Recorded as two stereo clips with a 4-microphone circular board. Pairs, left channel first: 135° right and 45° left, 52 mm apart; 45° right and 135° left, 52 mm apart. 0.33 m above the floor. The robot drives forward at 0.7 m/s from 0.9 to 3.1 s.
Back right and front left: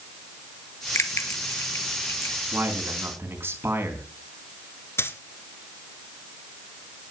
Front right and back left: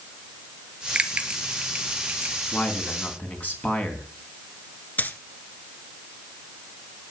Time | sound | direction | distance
0.9 | a bell | 160° right | 1.3 m
2.5 | a man speaking | 5° left | 3.5 m
5.0 | a dropped coin | 100° right | 1.2 m